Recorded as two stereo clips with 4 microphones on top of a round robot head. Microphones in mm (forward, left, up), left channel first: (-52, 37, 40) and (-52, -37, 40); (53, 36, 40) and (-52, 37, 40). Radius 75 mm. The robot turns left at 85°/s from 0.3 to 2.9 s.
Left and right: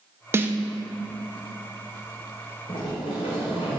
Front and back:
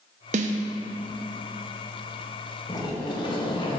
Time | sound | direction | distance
0.3 | a snare drum | 150° right | 0.5 m
2.7 | a sliding door | 55° left | 0.9 m